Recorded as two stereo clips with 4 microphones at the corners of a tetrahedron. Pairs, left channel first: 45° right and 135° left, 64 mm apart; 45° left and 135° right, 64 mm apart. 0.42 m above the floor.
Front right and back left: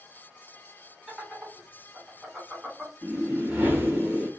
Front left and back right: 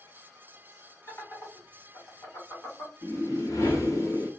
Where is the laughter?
60° left, 1.8 m.